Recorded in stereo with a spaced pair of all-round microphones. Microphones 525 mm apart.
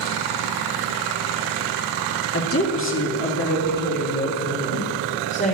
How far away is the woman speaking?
About 1.8 m.